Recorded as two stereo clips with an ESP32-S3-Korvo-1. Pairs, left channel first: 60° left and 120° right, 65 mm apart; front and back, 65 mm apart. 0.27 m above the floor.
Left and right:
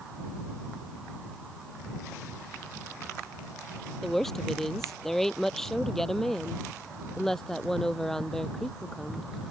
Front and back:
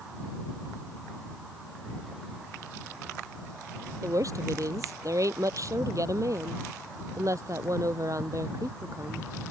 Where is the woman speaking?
145° left; by 9.3 s 140° left.